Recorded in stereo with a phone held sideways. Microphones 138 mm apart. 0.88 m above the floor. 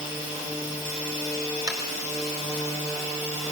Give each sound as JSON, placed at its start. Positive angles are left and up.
{"t": 1.7, "sound": "tapping", "side_deg": -25, "distance_m": 4.0}